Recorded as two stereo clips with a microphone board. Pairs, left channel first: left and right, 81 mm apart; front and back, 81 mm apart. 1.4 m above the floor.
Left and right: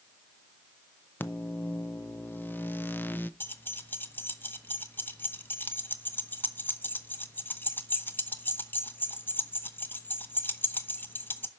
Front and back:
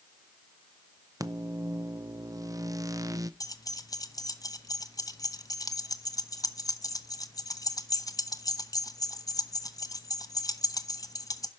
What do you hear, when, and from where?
1.2 s a microwave: 150° left, 0.6 m
3.4 s keys jangling: 30° left, 0.8 m